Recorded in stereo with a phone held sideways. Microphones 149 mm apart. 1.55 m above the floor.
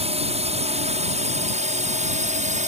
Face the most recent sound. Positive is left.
turn(degrees=-55)  # may be behind; listen again after turning